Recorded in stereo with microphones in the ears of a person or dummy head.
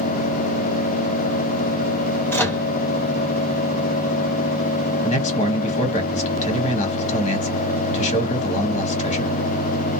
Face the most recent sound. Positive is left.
turn(degrees=35)  # may be behind; listen again after turning